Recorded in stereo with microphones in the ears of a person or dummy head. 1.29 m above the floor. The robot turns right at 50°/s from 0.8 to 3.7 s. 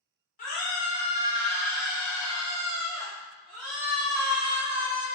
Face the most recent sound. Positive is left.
turn(degrees=-85)